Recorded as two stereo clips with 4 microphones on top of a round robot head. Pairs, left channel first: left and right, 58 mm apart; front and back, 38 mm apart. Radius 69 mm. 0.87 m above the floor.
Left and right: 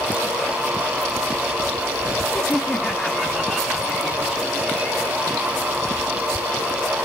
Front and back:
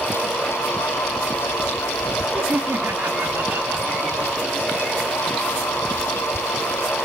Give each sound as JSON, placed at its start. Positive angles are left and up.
{"t": 2.3, "sound": "laughter", "azimuth_deg": 155, "distance_m": 1.6}